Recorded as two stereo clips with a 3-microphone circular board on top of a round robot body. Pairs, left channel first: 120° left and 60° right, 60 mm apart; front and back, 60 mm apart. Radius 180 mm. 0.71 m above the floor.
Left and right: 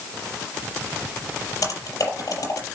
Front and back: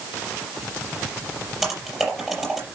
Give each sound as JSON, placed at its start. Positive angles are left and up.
{"t": 1.6, "sound": "typing on a keyboard", "azimuth_deg": 90, "distance_m": 5.0}